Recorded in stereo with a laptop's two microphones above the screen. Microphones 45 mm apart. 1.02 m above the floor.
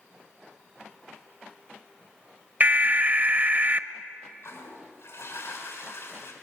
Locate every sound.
2.6 s an alarm: 40° right (ahead or behind), 1.0 m
4.4 s a toilet flushing: 85° left, 6.5 m